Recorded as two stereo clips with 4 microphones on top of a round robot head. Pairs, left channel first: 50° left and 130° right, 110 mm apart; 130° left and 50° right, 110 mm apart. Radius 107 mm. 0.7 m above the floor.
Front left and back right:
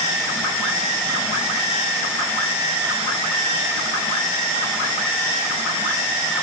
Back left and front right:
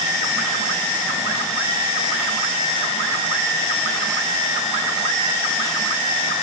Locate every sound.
Only background noise.